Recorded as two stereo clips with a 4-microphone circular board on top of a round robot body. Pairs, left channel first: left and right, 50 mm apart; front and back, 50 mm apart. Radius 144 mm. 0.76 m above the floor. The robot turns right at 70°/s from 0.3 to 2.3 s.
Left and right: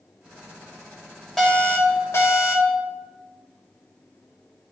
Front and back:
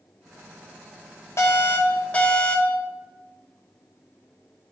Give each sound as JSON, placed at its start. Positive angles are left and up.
{"t": 1.4, "sound": "an alarm", "azimuth_deg": 10, "distance_m": 3.5}